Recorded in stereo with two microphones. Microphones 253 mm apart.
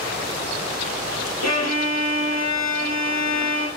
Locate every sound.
1.4 s a violin: 75° left (ahead or behind), 3 m